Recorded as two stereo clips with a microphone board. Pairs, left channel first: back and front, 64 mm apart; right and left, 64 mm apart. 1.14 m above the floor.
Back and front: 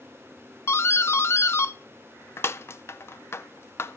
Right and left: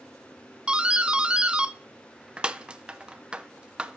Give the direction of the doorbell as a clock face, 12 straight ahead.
7 o'clock.